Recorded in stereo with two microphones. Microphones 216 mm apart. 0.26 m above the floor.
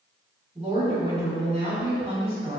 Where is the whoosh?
I don't hear a whoosh.